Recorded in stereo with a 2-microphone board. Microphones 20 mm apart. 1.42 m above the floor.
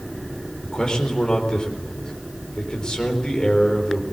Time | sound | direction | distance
0.6 | a man speaking | 40° left (ahead or behind) | 4.5 m